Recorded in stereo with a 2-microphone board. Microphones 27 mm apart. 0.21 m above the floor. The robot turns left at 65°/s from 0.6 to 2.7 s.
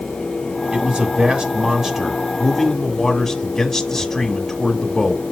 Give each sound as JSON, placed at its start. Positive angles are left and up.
{"t": 0.7, "sound": "a man speaking", "azimuth_deg": -70, "distance_m": 1.3}